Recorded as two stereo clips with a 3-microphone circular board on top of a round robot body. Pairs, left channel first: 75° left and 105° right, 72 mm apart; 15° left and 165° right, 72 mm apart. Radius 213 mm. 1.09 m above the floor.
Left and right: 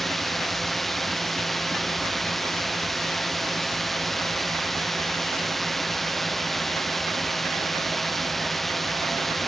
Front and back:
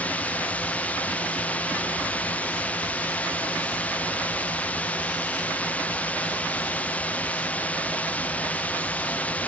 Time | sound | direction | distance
0.0 | a drone | 10° right | ?